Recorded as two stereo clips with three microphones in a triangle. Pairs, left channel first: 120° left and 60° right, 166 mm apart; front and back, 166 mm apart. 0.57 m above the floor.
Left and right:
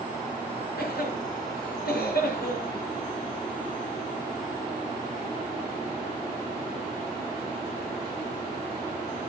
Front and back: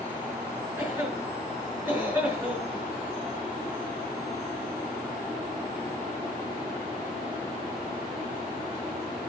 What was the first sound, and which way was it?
A cough, 105° left.